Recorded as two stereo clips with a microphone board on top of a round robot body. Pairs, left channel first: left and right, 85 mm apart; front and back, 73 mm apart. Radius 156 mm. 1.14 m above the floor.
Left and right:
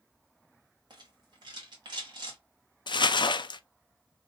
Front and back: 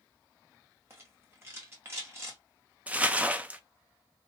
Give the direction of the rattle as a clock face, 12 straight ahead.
4 o'clock.